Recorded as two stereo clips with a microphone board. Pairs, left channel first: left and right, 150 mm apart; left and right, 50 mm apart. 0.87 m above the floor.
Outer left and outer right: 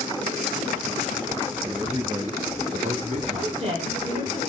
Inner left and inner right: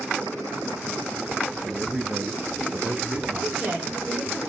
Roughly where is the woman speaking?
Right.